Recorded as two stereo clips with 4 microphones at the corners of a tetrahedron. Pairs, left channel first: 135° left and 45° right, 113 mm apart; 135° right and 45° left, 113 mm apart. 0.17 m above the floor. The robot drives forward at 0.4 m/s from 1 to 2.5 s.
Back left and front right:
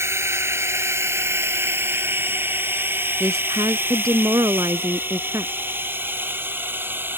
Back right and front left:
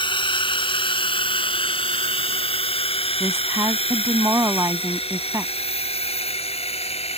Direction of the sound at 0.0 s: 105° right.